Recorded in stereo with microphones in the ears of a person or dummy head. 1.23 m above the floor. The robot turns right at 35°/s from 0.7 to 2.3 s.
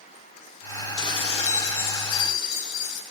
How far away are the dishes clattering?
About 3.5 m.